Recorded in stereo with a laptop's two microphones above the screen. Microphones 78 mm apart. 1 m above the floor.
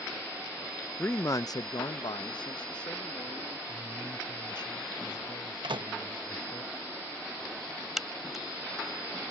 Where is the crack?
5° right (ahead or behind).